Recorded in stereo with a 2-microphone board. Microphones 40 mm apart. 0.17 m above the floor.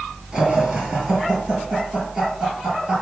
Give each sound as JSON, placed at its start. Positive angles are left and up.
{"t": 0.3, "sound": "laughter", "side_deg": -5, "distance_m": 3.0}